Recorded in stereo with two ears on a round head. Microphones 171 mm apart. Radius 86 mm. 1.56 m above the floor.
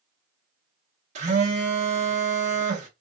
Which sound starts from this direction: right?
A phone buzzing, at 1.1 s.